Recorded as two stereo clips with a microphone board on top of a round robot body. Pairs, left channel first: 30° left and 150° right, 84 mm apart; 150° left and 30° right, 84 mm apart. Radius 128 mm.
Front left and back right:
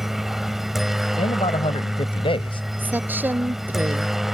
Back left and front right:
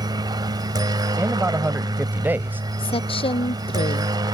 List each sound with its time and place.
0.0 s a helicopter: 65° right
1.2 s a man speaking: 40° left
2.8 s a woman speaking: 140° left